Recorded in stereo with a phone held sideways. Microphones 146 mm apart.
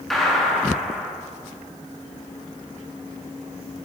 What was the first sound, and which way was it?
A gunshot, centre (ahead or behind).